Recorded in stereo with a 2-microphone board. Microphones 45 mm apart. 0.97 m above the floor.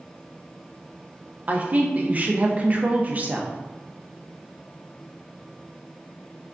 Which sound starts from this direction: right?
A woman speaking, at 1.5 s.